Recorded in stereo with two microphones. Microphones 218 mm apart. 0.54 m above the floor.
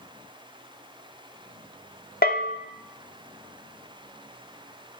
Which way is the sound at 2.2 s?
45° left (ahead or behind).